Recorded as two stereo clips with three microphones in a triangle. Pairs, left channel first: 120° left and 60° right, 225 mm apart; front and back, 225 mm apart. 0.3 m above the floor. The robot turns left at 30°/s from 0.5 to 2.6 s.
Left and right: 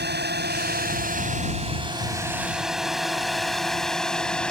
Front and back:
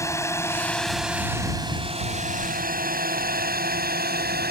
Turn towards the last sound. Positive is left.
turn(degrees=-155)